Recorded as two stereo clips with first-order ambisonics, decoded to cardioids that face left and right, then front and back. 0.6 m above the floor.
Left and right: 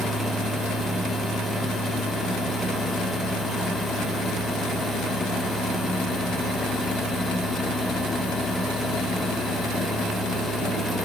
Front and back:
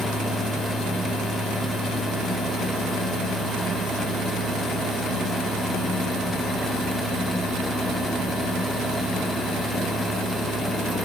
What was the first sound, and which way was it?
Only background noise.